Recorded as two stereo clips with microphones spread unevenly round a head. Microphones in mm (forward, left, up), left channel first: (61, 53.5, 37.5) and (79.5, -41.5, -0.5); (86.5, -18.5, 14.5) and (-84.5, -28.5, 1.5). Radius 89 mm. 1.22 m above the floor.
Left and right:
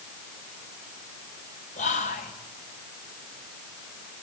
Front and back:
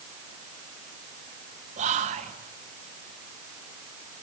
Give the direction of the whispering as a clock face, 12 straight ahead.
8 o'clock.